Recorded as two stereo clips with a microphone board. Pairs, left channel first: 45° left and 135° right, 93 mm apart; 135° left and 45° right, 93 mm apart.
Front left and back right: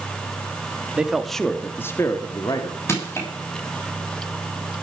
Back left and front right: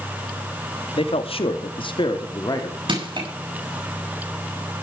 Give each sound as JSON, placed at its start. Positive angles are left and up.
{"t": 1.0, "sound": "a man speaking", "azimuth_deg": 145, "distance_m": 1.8}
{"t": 2.9, "sound": "crushing", "azimuth_deg": -15, "distance_m": 7.0}